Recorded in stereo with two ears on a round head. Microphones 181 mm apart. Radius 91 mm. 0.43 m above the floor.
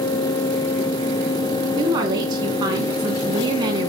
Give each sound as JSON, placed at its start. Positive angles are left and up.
{"t": 1.8, "sound": "a woman speaking", "side_deg": -20, "distance_m": 3.5}